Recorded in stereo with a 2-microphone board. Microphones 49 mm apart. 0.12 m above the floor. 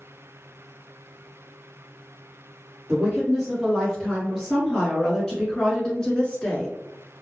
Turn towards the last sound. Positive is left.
turn(degrees=20)  # may be behind; listen again after turning